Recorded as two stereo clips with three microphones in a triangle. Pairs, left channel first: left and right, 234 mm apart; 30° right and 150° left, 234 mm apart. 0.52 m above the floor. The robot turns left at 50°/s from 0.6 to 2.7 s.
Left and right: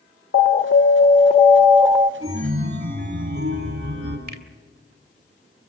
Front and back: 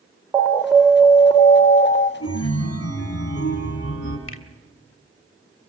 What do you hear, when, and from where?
0.3 s an alarm: 65° left, 0.9 m; by 2.1 s 10° right, 0.9 m
2.2 s a chime: 20° right, 5 m; by 4.2 s 45° right, 5 m
4.3 s a finger snap: 50° right, 1.8 m